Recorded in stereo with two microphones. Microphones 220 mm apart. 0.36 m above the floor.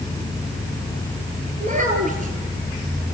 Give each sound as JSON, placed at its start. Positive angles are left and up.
{"t": 1.6, "sound": "a child speaking", "side_deg": -35, "distance_m": 5.0}